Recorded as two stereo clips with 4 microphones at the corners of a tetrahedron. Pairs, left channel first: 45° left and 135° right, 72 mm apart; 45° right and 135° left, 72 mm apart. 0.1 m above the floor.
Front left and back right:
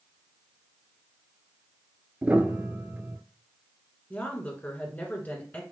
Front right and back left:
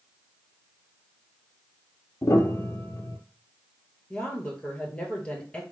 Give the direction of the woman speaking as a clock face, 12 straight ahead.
12 o'clock.